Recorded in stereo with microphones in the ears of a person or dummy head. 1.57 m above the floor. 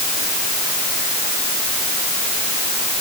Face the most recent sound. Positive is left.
No sound to turn to.